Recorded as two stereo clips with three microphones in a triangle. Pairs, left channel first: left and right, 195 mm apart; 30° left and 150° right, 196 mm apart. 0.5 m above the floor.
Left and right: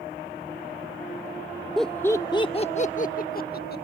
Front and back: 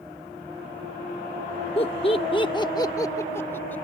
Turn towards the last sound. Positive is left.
turn(degrees=110)